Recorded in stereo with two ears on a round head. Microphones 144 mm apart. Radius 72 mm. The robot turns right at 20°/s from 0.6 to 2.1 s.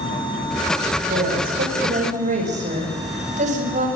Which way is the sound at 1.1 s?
65° right (ahead or behind).